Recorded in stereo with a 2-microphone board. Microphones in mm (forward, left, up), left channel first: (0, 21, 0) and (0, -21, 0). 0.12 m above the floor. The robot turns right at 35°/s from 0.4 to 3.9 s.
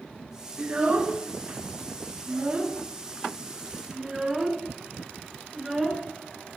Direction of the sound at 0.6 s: 25° right (ahead or behind).